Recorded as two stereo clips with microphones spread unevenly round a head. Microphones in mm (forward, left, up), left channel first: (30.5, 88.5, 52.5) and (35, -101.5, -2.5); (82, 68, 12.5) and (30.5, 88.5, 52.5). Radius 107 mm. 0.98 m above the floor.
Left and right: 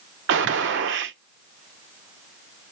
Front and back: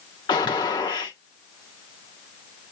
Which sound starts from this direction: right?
A gunshot, at 0.3 s.